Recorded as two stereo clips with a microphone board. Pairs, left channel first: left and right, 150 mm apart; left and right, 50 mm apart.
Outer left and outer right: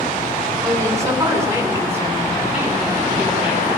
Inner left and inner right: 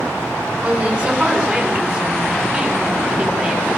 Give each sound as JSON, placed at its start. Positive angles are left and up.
{"t": 0.6, "sound": "a woman speaking", "side_deg": -20, "distance_m": 10.0}